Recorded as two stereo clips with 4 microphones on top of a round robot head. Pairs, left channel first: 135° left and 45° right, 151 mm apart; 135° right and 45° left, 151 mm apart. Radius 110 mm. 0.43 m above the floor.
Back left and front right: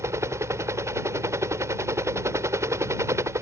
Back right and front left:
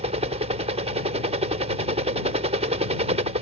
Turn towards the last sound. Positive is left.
turn(degrees=20)